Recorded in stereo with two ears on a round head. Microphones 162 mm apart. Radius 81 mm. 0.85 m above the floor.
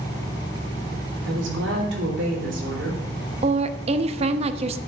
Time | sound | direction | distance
1.2 | a woman speaking | 75° right (ahead or behind) | 3.5 m
3.4 | a woman speaking | 35° right (ahead or behind) | 0.6 m